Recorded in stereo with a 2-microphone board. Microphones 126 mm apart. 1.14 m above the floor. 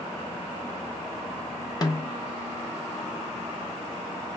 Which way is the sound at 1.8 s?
30° left (ahead or behind).